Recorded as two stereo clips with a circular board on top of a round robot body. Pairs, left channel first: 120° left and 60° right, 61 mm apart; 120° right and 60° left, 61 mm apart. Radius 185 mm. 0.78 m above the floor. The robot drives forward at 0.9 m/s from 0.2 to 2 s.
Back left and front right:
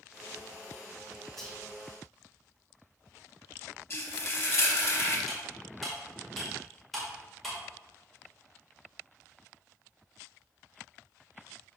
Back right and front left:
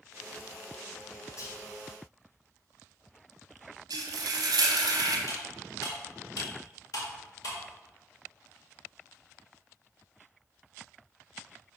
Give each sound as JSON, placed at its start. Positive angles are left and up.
{"t": 1.4, "sound": "whispering", "azimuth_deg": -155, "distance_m": 2.0}
{"t": 3.9, "sound": "frying", "azimuth_deg": 65, "distance_m": 0.8}
{"t": 5.3, "sound": "cutlery clinking", "azimuth_deg": -150, "distance_m": 2.0}